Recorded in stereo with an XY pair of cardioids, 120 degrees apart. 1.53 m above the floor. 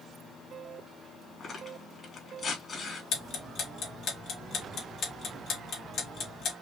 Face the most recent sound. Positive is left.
turn(degrees=55)